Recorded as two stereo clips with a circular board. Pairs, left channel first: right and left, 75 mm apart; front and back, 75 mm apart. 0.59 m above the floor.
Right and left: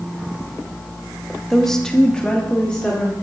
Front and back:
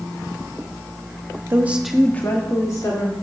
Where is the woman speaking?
175° right, 0.9 m; by 3.1 s 15° right, 1.8 m.